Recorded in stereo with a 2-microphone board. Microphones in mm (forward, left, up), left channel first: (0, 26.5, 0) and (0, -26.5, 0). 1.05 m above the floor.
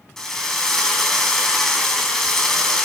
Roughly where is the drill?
Centre.